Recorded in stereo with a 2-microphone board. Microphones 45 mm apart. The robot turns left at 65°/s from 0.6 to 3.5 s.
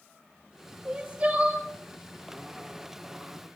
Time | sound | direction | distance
0.8 | crying | 60° right | 1.5 m